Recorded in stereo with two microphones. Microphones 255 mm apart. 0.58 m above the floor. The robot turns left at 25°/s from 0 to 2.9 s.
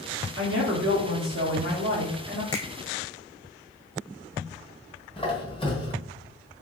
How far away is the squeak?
About 0.9 m.